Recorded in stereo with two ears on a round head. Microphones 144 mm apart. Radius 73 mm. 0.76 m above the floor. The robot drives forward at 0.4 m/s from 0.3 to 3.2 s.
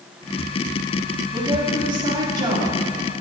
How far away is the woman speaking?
About 1.8 m.